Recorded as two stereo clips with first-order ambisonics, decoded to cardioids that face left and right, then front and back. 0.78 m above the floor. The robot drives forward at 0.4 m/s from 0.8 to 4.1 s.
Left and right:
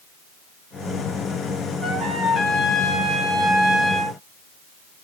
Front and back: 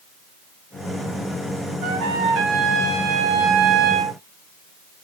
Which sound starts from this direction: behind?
A trumpet, at 1.8 s.